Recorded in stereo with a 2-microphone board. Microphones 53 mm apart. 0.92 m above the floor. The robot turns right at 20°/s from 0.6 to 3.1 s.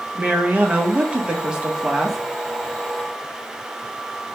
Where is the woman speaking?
35° right, 0.7 m; by 2.2 s 5° right, 0.7 m.